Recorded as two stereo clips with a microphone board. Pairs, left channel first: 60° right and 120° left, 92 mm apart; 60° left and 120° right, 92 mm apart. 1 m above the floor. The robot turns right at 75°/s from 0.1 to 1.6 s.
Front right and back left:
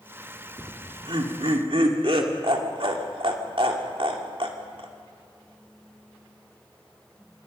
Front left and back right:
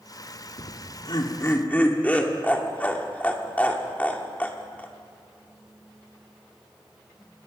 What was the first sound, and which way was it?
Laughter, 55° left.